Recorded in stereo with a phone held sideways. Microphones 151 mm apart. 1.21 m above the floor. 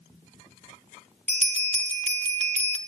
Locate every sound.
1.3 s a bell: 50° right (ahead or behind), 1.0 m